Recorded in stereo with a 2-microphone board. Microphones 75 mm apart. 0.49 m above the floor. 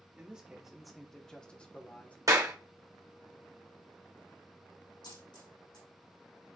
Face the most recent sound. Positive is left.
turn(degrees=80)